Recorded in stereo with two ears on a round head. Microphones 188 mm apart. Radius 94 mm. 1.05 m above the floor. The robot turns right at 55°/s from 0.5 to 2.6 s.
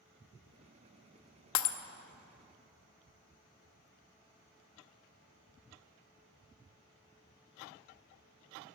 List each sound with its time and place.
1.6 s breaking glass: 70° left (ahead or behind), 0.8 m